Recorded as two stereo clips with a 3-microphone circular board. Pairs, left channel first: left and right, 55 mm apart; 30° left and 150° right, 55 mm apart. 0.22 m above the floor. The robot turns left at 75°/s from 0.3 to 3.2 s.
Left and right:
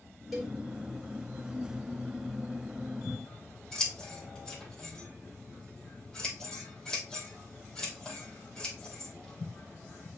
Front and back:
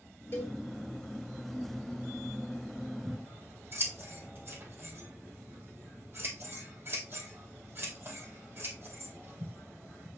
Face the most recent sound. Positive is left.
turn(degrees=165)